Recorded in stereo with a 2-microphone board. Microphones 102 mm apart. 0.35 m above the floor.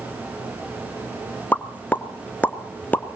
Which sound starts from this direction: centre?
A pop, at 1.5 s.